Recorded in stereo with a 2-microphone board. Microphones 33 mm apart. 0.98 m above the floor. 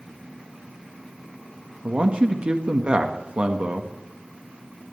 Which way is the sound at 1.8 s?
35° right (ahead or behind).